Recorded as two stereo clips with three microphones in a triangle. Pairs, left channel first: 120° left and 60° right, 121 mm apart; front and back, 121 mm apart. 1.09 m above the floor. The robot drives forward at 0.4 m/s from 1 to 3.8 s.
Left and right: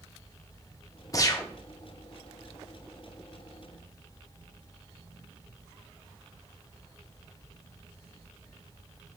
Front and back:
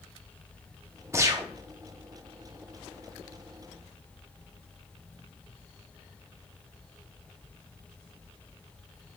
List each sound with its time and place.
1.1 s a gunshot: 140° left, 0.6 m; by 1.5 s 150° left, 0.6 m